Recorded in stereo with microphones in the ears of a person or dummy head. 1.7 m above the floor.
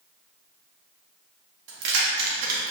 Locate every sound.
1.7 s keys jangling: 60° right (ahead or behind), 1.7 m; by 2.7 s 45° right (ahead or behind), 1.8 m